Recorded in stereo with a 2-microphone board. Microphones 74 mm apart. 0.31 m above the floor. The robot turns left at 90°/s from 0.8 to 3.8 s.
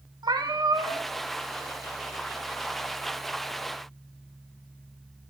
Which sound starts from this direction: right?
A cat meowing, at 0.2 s.